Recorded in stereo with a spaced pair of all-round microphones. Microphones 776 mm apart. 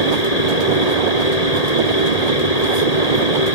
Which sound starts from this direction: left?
A fan, at 0.0 s.